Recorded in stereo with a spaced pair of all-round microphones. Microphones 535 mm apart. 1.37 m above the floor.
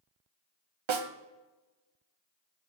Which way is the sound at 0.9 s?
60° right (ahead or behind).